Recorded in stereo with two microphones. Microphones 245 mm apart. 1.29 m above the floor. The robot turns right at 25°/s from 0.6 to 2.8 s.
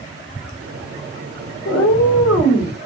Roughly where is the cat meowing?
Left.